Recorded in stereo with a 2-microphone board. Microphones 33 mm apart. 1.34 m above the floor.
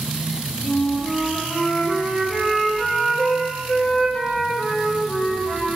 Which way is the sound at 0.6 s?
20° left (ahead or behind).